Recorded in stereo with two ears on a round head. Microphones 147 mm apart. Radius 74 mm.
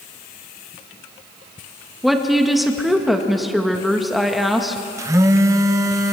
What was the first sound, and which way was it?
A woman speaking, centre (ahead or behind).